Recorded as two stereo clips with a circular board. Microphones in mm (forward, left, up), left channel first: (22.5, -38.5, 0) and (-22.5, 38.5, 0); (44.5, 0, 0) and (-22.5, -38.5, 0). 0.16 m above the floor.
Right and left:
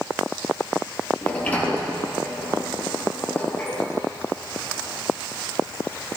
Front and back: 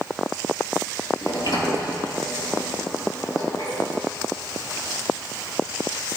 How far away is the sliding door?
About 3 m.